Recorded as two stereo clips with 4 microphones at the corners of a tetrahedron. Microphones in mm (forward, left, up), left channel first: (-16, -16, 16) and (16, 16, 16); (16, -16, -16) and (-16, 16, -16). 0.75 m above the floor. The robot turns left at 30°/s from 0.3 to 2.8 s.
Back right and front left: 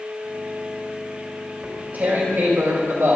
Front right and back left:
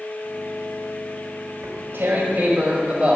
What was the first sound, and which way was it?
Tearing paper, 105° left.